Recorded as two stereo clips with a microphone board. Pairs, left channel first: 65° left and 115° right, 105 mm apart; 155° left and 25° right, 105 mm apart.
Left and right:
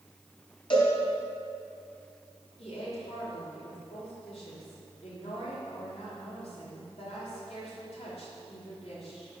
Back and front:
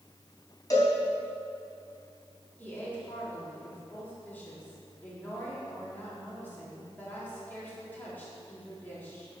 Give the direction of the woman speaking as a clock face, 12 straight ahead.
9 o'clock.